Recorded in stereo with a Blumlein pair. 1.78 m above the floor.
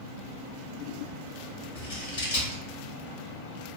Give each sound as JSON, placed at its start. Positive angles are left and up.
{"t": 1.8, "sound": "scissors", "azimuth_deg": 55, "distance_m": 1.2}